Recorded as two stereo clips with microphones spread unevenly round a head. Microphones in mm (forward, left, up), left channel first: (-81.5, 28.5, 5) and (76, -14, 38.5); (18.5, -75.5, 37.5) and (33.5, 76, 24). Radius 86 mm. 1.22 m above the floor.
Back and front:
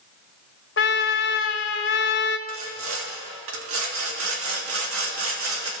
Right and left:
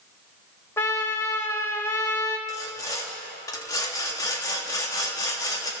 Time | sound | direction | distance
0.8 | a trumpet | 165° right | 1.4 m
2.5 | sawing | 25° right | 3 m